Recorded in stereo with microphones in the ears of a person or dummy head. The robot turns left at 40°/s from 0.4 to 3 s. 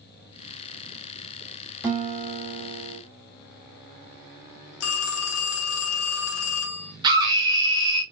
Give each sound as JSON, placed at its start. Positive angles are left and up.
{"t": 1.8, "sound": "a guitar", "azimuth_deg": -10, "distance_m": 1.9}
{"t": 4.8, "sound": "a phone ringing", "side_deg": 75, "distance_m": 0.8}
{"t": 7.0, "sound": "a scream", "side_deg": -20, "distance_m": 1.8}